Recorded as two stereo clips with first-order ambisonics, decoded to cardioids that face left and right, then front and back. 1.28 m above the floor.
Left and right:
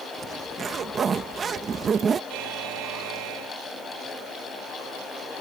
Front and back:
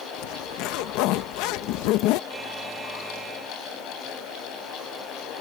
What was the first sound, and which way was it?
A zipper, 20° right.